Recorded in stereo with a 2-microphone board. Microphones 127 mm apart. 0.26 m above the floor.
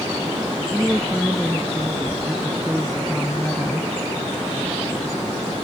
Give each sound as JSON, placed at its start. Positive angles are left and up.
{"t": 0.7, "sound": "a woman speaking", "side_deg": -5}